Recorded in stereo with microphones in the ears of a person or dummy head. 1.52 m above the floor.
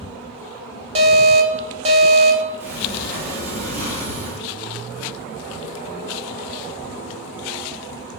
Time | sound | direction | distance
0.9 | an alarm | 25° right (ahead or behind) | 0.6 m
2.6 | a sliding door | 55° right (ahead or behind) | 1.5 m